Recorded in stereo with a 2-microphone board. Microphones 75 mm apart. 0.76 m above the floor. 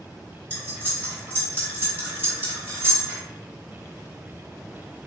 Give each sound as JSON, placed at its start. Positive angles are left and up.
{"t": 0.5, "sound": "cutlery clinking", "side_deg": -30, "distance_m": 1.3}